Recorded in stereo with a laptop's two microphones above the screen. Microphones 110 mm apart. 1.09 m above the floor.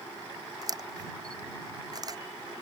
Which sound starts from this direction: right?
A camera shutter, at 0.6 s.